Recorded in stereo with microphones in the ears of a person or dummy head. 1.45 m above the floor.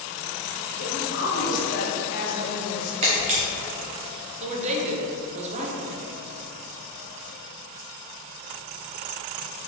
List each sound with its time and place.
0.8 s a woman speaking: 45° left (ahead or behind), 1.6 m
3.0 s a camera shutter: 30° right (ahead or behind), 1.0 m
4.4 s a woman speaking: 40° right (ahead or behind), 0.9 m